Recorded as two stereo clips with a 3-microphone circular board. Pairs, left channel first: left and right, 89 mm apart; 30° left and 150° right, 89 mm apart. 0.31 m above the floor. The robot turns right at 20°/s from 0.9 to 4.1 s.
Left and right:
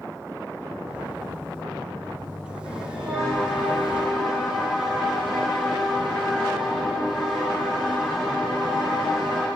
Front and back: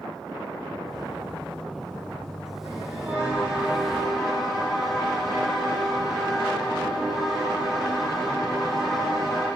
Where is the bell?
90° right, 6.5 m; by 9.5 s 60° right, 6.5 m.